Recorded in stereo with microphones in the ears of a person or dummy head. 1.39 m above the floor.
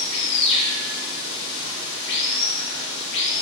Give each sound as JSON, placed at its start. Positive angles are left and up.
{"t": 0.0, "sound": "running water", "side_deg": 70, "distance_m": 1.2}